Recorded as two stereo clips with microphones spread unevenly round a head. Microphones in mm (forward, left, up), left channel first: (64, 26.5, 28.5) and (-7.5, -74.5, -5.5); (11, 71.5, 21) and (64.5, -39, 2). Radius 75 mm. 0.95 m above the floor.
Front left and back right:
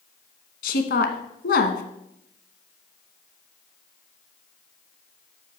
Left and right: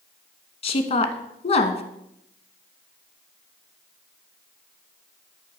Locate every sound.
0.6 s a woman speaking: 75° left, 1.1 m